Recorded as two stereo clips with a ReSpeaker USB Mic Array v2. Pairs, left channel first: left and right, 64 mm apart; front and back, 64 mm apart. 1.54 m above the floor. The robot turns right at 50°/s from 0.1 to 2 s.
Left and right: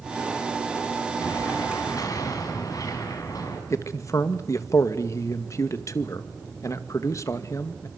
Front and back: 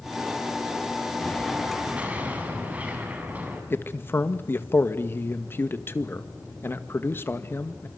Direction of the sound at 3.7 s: 55° left.